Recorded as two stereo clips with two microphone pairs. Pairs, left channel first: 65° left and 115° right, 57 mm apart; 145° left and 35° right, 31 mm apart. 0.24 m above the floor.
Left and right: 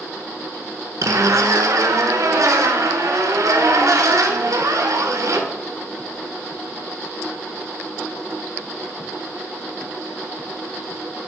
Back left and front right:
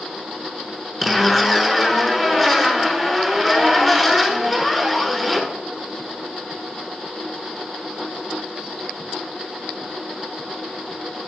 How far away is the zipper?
About 1.0 m.